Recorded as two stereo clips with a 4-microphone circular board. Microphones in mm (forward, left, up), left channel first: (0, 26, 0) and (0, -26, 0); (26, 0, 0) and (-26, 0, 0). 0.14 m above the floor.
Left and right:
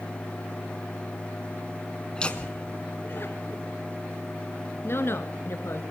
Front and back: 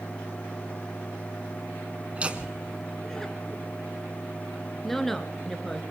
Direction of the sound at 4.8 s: 80° left.